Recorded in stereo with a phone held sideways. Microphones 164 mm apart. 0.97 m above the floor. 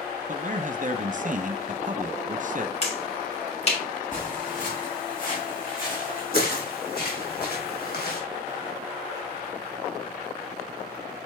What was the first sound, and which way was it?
A man speaking, 50° right (ahead or behind).